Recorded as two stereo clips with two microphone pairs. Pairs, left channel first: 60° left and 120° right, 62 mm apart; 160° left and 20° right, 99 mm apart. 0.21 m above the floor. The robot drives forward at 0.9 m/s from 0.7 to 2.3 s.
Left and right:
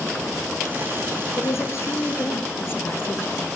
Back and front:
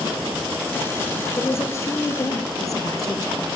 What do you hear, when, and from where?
1.4 s a woman speaking: 95° left, 4 m; by 3.4 s 105° left, 4.5 m